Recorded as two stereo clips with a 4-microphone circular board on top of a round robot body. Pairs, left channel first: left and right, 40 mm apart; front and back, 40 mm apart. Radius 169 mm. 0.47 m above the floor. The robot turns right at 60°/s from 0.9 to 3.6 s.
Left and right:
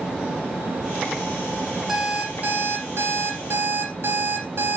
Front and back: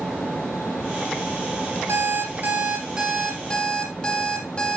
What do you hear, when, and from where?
1.9 s an alarm clock: 170° right, 8.5 m; by 4.8 s 70° right, 8.5 m